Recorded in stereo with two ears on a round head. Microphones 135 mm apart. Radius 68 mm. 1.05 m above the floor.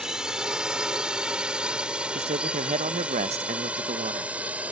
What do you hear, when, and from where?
0.0 s a drone: 5° right (ahead or behind); by 4.7 s 10° right (ahead or behind)
2.1 s a man speaking: 45° right (ahead or behind)